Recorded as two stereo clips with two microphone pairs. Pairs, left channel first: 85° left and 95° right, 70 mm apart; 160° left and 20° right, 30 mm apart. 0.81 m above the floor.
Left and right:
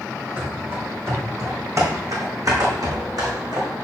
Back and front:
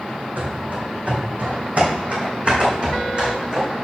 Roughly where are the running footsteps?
Ahead right.